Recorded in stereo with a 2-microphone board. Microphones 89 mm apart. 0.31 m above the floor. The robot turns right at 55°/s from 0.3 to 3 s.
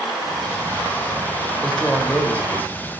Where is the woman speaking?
10° left (ahead or behind), 1.1 m; by 2.7 s 20° left (ahead or behind), 1.1 m.